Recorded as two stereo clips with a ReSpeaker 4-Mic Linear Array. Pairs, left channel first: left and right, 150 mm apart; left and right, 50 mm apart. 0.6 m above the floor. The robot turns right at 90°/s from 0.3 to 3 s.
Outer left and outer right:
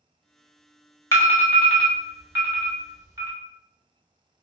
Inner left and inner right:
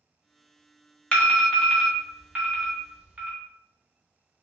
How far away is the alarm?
About 1.3 m.